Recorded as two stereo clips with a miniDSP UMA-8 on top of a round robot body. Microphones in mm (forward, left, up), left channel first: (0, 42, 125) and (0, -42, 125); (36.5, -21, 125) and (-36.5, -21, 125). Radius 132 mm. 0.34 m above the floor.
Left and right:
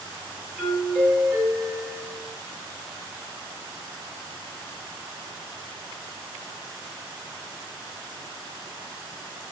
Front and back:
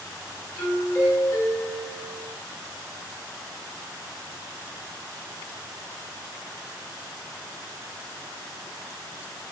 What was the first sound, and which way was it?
A doorbell, 10° right.